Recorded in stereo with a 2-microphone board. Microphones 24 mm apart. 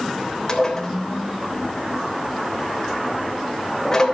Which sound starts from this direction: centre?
Dishes clattering, at 0.5 s.